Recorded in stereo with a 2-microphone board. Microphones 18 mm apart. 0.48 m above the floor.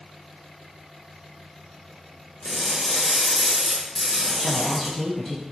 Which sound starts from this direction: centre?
Crushing, at 2.4 s.